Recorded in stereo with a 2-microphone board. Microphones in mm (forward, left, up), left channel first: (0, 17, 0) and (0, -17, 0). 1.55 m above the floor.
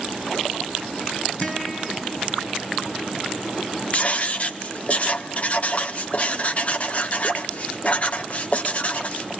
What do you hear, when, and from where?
1.4 s a guitar: 40° left (ahead or behind), 8.5 m
3.9 s writing: 40° left (ahead or behind), 1.3 m